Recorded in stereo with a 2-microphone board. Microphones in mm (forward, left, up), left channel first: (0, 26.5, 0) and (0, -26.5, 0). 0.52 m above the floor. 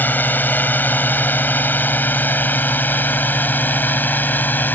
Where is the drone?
35° left (ahead or behind).